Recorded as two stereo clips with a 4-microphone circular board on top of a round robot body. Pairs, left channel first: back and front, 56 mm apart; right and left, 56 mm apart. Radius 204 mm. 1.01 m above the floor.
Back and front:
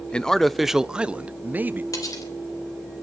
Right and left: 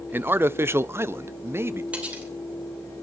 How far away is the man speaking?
About 0.8 m.